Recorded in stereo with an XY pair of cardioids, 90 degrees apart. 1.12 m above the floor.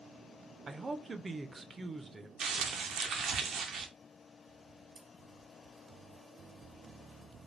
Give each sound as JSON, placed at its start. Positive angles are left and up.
{"t": 0.7, "sound": "a man speaking", "azimuth_deg": -30, "distance_m": 0.5}
{"t": 2.4, "sound": "crumpling", "azimuth_deg": -65, "distance_m": 0.6}
{"t": 5.0, "sound": "scissors", "azimuth_deg": -65, "distance_m": 1.2}